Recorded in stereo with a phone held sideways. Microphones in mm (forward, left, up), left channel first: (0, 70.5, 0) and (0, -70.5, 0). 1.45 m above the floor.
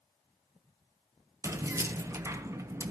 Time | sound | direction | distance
1.4 | keys jangling | 20° right (ahead or behind) | 0.6 m